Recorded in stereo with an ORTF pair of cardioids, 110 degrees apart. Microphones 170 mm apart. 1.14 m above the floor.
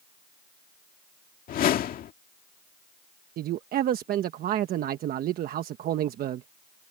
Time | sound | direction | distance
1.5 | a whoosh | 55° left | ?
3.4 | a man speaking | 60° right | ?